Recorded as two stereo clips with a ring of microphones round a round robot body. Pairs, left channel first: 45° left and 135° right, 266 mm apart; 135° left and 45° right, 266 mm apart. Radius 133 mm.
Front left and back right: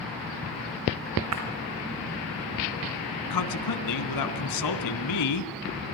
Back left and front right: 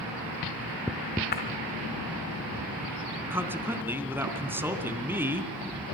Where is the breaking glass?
170° right, 4 m.